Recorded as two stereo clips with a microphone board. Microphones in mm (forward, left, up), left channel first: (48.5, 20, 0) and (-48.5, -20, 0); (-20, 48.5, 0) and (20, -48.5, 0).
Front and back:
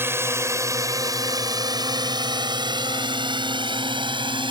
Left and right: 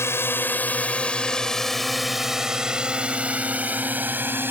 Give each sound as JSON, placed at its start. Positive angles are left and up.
{"t": 0.0, "sound": "a drone", "azimuth_deg": 155}